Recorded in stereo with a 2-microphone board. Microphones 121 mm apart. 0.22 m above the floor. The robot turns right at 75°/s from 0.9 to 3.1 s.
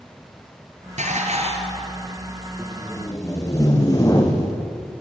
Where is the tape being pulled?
10° right, 4 m; by 4.6 s 30° left, 4 m.